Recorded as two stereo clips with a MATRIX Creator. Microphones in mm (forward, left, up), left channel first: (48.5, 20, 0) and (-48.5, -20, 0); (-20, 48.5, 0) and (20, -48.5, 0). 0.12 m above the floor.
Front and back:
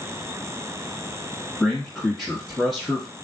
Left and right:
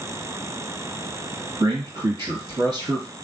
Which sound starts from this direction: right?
A man speaking, at 1.6 s.